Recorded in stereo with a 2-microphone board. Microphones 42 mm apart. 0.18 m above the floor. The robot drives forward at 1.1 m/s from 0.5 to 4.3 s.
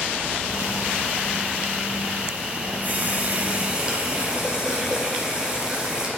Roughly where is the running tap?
Right.